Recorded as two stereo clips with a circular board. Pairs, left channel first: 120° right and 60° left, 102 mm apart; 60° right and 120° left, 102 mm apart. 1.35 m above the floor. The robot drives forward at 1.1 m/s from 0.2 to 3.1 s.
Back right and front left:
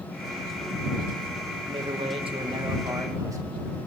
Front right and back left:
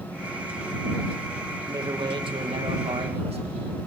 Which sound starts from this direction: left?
A man speaking, at 1.7 s.